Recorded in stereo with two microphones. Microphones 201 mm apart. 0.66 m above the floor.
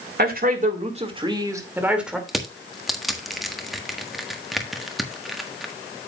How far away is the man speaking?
About 2.5 m.